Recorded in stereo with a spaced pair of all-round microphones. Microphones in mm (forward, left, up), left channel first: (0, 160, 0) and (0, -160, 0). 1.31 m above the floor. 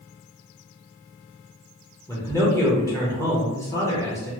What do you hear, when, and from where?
2.1 s a man speaking: 10° left (ahead or behind), 0.7 m